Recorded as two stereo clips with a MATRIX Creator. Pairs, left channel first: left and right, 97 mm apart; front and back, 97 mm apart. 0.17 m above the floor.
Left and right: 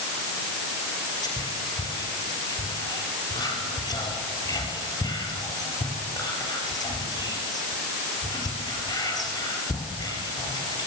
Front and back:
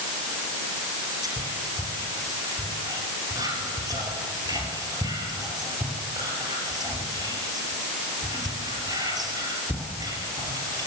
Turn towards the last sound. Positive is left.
turn(degrees=135)